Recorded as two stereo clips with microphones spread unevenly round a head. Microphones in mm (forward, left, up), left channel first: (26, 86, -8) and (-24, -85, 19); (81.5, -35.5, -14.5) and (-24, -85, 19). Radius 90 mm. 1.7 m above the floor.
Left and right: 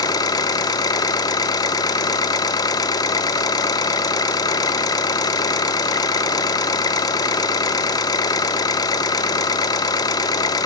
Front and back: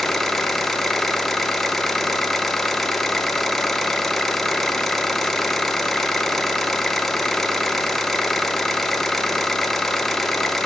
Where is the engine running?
140° left, 0.8 m.